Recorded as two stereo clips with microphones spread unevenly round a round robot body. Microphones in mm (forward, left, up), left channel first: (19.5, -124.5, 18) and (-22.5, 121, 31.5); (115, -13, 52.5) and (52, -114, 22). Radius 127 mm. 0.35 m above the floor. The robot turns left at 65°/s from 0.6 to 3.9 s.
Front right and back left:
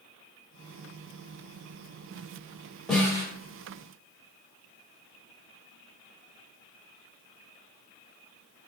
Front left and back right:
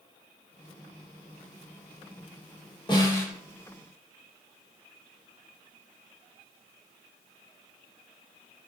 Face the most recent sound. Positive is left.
turn(degrees=-60)